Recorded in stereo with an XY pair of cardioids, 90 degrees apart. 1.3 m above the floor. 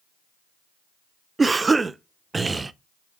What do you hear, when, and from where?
1.4 s a cough: 30° right, 0.5 m